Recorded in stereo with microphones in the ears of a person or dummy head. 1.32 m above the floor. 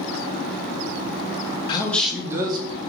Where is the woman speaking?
25° left (ahead or behind), 0.7 m; by 2.8 s 35° right (ahead or behind), 1.3 m.